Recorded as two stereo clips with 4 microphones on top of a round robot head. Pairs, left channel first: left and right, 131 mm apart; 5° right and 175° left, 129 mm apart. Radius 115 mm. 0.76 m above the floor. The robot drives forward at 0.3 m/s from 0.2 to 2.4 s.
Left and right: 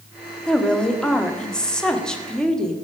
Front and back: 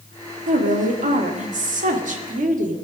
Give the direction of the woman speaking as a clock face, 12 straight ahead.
6 o'clock.